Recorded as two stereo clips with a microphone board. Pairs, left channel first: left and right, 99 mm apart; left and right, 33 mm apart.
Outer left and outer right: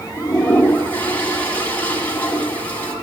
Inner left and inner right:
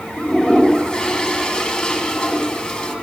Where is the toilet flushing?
20° left (ahead or behind), 1.5 m.